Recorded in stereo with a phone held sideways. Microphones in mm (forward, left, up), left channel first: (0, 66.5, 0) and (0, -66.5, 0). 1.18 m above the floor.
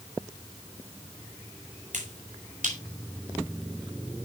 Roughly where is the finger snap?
Right.